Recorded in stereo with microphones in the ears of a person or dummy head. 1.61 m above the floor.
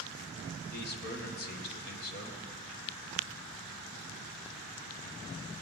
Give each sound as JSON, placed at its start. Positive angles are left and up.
{"t": 0.7, "sound": "a man speaking", "side_deg": 50, "distance_m": 1.8}